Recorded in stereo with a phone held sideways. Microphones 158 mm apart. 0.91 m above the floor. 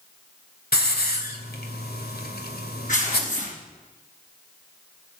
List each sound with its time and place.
0.7 s a hiss: 80° left, 2 m
2.9 s tearing paper: 55° left (ahead or behind), 5 m